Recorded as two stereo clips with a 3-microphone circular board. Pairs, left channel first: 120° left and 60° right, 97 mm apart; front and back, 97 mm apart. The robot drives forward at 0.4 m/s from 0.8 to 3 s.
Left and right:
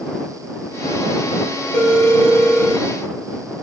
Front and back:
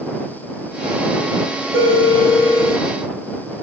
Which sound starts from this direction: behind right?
A phone ringing, at 1.7 s.